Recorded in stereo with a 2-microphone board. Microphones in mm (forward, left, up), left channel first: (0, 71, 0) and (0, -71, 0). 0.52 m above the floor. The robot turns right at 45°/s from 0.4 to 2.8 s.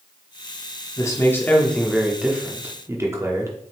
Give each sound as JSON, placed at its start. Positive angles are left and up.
{"t": 1.0, "sound": "a man speaking", "azimuth_deg": 135, "distance_m": 0.9}